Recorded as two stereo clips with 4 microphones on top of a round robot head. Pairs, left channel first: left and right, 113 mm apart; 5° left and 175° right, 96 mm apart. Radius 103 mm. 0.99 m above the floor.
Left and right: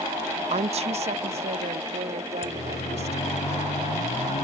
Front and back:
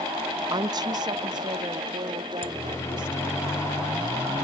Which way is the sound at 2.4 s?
70° left.